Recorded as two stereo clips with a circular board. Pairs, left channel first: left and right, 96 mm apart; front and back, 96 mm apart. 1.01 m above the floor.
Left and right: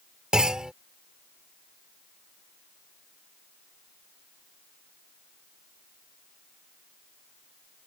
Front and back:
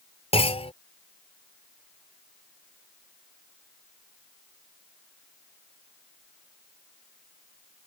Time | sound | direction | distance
0.3 | a clunk | 5° right | ?